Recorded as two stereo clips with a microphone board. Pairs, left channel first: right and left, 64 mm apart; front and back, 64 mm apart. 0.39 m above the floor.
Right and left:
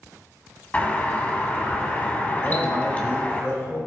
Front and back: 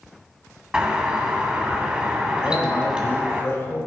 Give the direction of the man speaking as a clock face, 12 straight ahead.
2 o'clock.